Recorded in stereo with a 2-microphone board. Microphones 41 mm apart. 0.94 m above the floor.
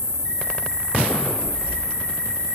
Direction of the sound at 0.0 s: 25° left (ahead or behind).